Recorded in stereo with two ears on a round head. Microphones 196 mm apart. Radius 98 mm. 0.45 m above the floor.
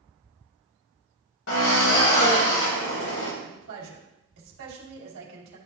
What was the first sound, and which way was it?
A drill, 65° left (ahead or behind).